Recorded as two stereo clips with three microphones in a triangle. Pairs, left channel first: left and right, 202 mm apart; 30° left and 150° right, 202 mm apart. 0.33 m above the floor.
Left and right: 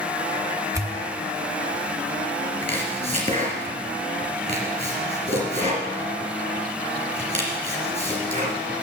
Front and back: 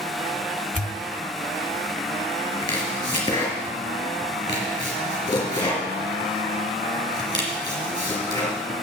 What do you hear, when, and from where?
0.7 s a pop: 20° right, 1.3 m
2.6 s chopping: 40° right, 3 m